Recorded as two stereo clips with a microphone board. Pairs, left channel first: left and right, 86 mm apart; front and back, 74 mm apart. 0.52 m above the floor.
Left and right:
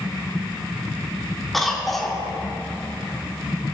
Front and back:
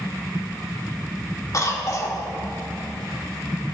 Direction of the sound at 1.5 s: 5° left.